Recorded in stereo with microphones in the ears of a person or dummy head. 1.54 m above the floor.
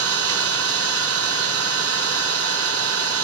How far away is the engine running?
About 1.8 m.